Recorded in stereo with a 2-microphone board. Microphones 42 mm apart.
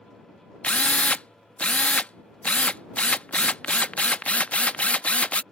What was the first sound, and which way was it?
A drill, 30° left (ahead or behind).